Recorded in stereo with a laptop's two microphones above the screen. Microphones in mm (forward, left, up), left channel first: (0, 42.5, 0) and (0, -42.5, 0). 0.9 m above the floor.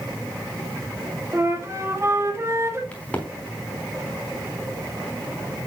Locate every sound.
1.3 s a flute: 30° right (ahead or behind), 1.6 m
2.9 s a crack: 15° left (ahead or behind), 4 m